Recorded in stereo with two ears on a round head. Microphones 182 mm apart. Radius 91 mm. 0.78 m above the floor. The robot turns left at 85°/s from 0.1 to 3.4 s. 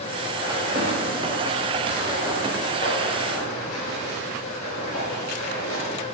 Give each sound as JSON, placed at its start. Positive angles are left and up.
{"t": 0.4, "sound": "footsteps", "side_deg": -5, "distance_m": 7.0}